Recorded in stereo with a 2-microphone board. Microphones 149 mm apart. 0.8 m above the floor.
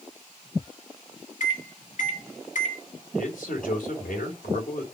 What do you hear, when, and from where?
1.4 s a microwave: 65° left (ahead or behind), 1.3 m
3.1 s a man speaking: 70° left (ahead or behind), 3 m